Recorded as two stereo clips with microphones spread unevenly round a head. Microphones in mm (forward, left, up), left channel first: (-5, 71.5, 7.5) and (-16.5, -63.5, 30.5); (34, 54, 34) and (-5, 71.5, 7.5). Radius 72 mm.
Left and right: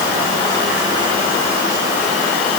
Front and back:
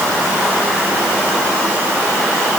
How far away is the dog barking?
No dog barking in this recording.